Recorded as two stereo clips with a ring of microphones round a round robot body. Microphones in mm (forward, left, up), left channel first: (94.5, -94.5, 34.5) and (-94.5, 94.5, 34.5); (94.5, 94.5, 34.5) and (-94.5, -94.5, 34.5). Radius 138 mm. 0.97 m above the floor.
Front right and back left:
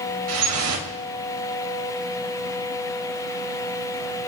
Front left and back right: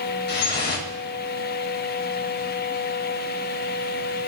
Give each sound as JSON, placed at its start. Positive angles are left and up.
{"t": 0.3, "sound": "dripping", "azimuth_deg": 100, "distance_m": 2.5}